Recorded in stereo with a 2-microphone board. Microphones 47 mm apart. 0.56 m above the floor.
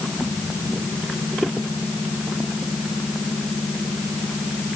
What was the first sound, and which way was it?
Only background noise.